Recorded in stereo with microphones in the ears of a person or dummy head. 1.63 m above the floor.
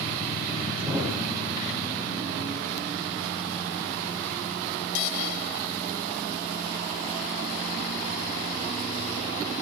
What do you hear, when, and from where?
0.8 s a thud: 5° right (ahead or behind), 3 m